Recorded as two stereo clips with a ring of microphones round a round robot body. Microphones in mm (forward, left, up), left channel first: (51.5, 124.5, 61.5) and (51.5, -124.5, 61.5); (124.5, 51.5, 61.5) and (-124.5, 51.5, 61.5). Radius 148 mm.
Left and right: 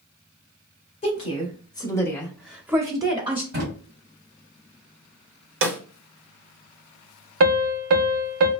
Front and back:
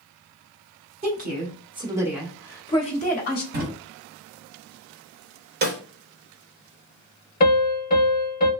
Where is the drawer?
130° right, 1.2 m.